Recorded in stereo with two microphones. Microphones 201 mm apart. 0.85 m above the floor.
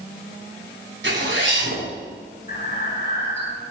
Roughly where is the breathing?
Left.